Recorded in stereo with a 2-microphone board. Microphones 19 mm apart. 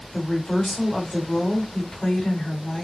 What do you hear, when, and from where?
0.1 s a woman speaking: 50° left (ahead or behind), 3 m